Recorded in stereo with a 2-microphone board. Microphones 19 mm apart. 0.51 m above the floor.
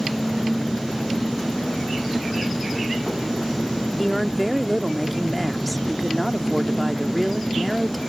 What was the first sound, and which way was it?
An engine running, 5° right (ahead or behind).